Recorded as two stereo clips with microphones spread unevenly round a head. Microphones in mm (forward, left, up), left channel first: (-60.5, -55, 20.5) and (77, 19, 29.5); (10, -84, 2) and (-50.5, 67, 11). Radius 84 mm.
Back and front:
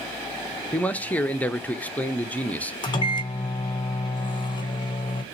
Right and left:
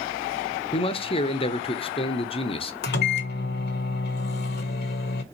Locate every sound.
0.7 s a man speaking: 80° right, 0.6 m
2.8 s a microwave: 90° right, 0.7 m